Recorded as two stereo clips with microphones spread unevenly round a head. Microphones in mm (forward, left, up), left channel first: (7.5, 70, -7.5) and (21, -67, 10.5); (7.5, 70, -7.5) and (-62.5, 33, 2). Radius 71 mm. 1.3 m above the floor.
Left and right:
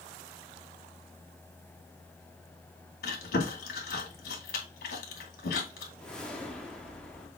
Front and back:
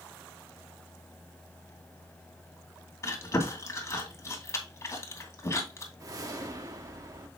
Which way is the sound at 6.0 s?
175° right.